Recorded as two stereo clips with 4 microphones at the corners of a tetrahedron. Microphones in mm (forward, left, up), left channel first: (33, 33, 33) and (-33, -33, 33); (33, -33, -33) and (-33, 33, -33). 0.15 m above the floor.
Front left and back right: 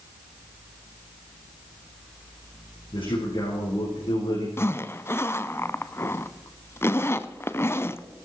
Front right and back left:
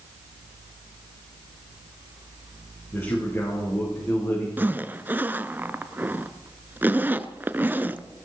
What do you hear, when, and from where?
2.9 s a man speaking: 15° left, 6 m
4.6 s a zipper: 85° left, 0.6 m